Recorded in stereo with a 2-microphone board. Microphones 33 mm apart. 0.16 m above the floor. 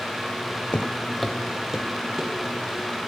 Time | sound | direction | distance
0.7 | footsteps | 40° left (ahead or behind) | 0.5 m